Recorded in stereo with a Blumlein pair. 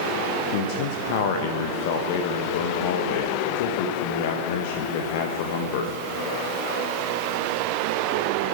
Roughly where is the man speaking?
Ahead left.